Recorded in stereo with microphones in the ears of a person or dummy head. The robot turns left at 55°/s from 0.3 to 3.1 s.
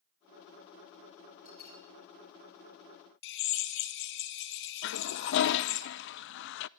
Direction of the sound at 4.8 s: 60° left (ahead or behind).